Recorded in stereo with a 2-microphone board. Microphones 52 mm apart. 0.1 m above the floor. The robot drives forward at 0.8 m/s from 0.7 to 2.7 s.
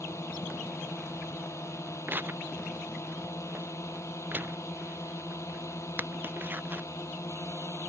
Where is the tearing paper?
40° right (ahead or behind); by 6.9 s 35° right (ahead or behind).